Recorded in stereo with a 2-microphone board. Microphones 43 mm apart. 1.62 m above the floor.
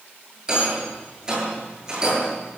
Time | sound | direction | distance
0.5 | a rattle | 15° right (ahead or behind) | 9 m